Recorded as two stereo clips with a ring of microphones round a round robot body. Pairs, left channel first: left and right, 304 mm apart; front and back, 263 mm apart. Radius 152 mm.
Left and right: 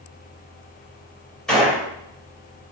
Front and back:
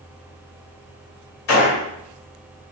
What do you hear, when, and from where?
1.5 s a gunshot: 5° left, 2 m